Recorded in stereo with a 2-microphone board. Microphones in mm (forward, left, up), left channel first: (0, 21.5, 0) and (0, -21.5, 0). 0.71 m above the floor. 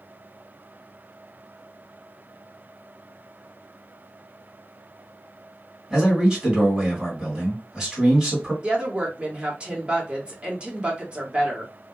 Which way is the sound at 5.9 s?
15° right (ahead or behind).